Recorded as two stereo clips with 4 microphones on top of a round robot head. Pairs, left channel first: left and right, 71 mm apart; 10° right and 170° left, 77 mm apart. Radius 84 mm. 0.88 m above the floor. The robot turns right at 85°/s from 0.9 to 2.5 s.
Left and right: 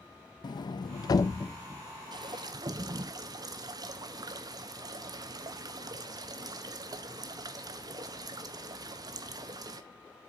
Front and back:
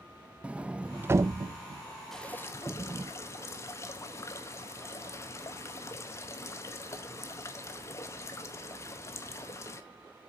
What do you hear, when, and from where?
0.4 s a sliding door: 95° left, 0.5 m; by 3.1 s 130° right, 0.5 m
2.1 s dripping: 95° right, 1.0 m; by 9.8 s 65° right, 1.0 m